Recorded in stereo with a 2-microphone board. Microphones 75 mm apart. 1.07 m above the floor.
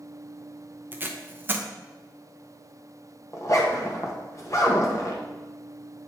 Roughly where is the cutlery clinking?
I don't hear cutlery clinking.